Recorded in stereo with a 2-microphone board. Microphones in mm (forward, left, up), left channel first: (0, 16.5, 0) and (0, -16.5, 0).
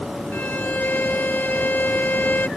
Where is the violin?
70° left (ahead or behind).